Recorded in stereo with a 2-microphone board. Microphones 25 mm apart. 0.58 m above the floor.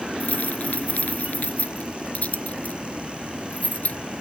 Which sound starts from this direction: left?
Keys jangling, at 0.2 s.